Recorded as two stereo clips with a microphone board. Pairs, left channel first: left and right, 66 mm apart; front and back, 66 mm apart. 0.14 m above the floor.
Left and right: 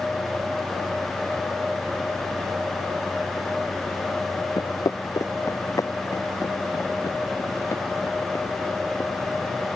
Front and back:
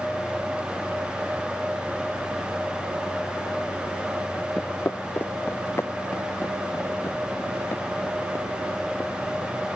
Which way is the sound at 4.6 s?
65° left.